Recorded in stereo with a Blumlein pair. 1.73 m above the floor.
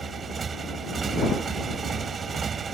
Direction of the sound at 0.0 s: 20° right.